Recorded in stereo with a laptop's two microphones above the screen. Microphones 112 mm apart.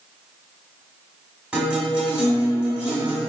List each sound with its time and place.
1.5 s a guitar: 10° right (ahead or behind), 1.5 m